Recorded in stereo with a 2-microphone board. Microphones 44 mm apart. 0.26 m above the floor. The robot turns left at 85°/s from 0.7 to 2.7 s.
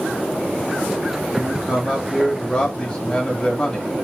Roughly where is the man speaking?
Centre.